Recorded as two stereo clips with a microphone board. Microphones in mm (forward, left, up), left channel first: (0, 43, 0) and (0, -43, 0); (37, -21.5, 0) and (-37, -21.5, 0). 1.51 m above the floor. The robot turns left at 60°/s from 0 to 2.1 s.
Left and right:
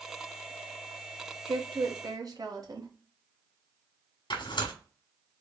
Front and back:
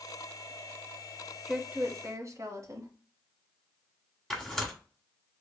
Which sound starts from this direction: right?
A woman speaking, at 1.5 s.